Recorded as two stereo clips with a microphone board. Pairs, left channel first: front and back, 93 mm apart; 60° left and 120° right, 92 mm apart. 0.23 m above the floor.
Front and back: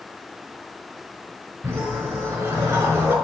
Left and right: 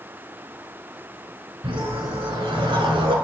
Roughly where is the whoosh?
Behind right.